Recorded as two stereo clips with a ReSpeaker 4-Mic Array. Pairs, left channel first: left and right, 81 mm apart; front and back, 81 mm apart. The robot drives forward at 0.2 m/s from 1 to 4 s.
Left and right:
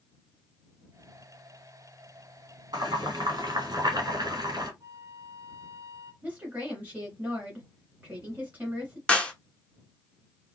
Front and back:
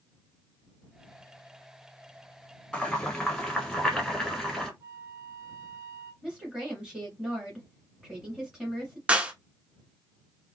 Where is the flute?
135° right, 1.1 m.